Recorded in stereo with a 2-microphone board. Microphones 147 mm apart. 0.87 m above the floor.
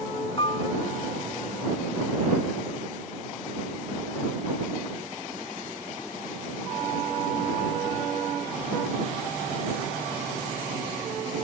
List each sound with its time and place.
0.4 s a piano: 35° left (ahead or behind)